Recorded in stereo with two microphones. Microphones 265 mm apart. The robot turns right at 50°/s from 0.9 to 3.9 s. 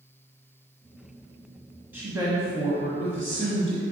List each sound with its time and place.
1.9 s a woman speaking: 165° right, 1.1 m; by 3.8 s 70° right, 1.1 m